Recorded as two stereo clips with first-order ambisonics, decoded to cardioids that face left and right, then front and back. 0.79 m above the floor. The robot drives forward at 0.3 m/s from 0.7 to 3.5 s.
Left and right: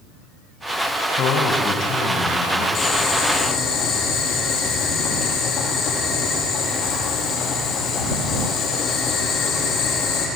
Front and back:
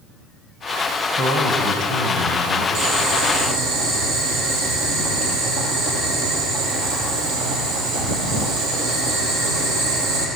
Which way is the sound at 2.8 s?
145° left.